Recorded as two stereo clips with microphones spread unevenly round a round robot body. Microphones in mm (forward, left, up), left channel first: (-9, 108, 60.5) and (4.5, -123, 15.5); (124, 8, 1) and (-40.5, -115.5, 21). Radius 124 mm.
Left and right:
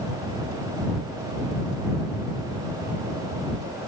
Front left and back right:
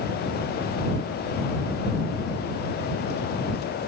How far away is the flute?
No flute in this recording.